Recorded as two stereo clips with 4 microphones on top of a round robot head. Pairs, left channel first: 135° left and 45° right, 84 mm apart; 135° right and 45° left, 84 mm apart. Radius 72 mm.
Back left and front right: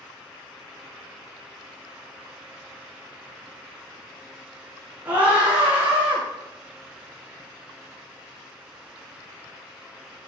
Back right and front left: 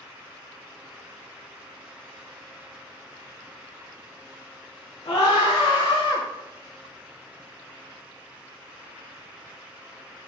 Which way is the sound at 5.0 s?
120° right.